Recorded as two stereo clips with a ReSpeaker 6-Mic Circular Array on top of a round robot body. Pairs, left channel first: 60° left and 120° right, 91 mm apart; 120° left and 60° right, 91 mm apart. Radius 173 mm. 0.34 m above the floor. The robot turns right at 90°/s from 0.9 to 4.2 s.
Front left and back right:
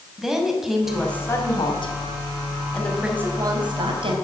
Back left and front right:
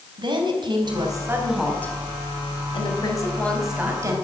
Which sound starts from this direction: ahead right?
A woman speaking, at 0.2 s.